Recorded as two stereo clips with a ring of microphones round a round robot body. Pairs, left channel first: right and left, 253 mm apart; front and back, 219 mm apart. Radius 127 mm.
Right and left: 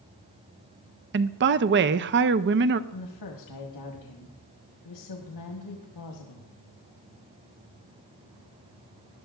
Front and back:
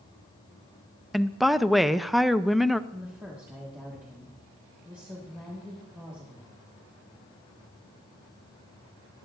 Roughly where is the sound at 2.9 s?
Right.